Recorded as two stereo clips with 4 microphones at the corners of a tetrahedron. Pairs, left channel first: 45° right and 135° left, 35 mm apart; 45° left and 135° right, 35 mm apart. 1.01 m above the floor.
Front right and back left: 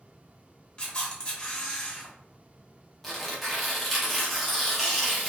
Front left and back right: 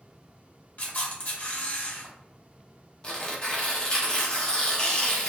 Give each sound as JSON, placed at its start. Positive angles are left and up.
{"t": 0.8, "sound": "a camera shutter", "azimuth_deg": 15, "distance_m": 0.9}
{"t": 3.0, "sound": "tearing paper", "azimuth_deg": 45, "distance_m": 0.7}